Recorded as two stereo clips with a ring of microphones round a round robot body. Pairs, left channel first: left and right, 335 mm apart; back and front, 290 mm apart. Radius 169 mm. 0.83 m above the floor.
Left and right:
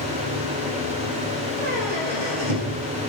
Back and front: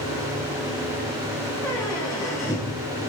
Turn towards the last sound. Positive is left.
turn(degrees=-90)